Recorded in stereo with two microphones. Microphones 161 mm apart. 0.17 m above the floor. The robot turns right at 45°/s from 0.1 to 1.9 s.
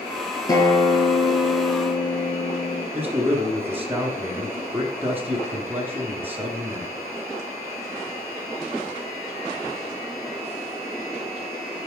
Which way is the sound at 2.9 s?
10° right (ahead or behind).